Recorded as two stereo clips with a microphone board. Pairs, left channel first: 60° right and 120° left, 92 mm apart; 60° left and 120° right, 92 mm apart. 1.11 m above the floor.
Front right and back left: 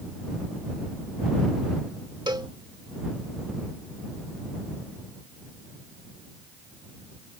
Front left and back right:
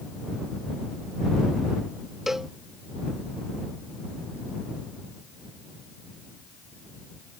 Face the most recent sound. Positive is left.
turn(degrees=155)